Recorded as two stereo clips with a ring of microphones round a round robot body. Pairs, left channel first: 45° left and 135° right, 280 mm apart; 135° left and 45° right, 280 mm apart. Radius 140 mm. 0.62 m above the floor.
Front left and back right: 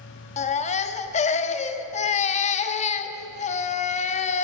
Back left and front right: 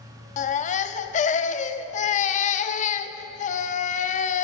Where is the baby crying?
90° left, 0.5 m.